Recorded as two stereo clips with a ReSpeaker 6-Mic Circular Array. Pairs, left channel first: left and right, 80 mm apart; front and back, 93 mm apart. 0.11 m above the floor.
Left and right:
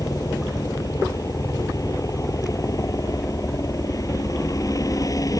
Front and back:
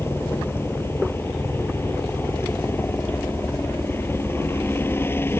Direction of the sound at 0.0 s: 60° left.